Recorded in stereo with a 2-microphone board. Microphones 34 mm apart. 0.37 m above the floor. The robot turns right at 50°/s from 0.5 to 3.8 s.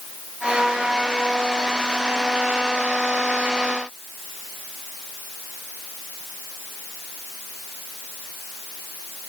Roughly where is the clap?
I don't hear a clap.